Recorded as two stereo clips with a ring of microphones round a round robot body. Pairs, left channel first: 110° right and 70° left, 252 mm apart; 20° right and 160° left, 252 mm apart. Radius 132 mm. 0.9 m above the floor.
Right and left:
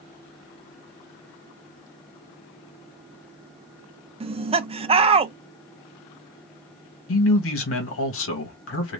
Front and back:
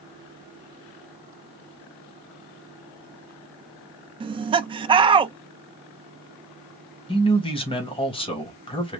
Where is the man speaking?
90° right, 1.2 m.